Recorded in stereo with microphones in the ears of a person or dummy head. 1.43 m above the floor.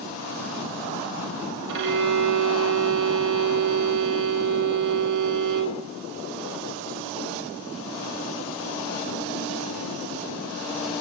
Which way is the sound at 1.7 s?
60° right (ahead or behind).